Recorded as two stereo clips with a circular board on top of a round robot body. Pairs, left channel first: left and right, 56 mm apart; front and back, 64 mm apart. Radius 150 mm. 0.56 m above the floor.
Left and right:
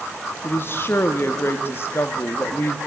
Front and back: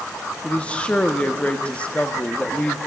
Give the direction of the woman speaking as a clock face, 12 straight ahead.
10 o'clock.